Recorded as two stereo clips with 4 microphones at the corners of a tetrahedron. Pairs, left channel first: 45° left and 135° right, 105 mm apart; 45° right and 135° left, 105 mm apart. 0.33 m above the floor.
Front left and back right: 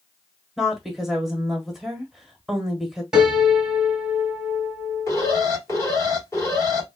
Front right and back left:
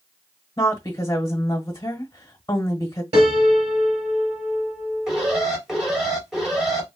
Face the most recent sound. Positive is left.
turn(degrees=55)